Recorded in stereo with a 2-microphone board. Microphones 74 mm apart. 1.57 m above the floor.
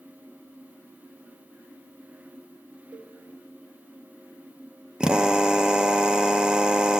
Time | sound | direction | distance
2.9 | a cowbell | 65° right (ahead or behind) | 5.5 m
5.0 | a drill | 10° right (ahead or behind) | 0.7 m